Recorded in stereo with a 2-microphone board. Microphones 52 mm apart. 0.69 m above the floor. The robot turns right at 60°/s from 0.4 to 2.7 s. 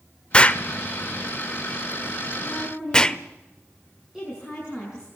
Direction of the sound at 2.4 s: 5° left (ahead or behind).